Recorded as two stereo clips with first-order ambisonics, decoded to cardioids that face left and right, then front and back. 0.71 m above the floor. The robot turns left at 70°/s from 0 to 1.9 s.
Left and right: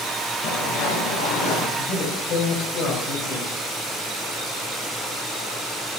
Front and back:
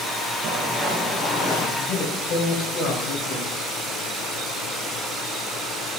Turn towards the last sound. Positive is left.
turn(degrees=45)